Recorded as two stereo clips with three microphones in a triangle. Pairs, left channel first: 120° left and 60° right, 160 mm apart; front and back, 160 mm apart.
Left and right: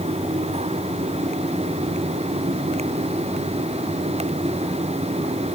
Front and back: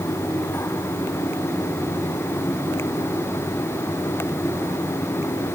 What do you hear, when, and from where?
Only background noise.